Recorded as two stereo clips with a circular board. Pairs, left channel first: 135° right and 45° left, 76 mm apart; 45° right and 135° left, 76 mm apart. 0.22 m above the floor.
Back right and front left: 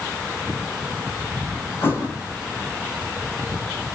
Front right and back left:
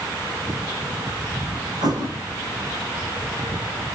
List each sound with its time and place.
1.8 s a thud: 165° left, 7 m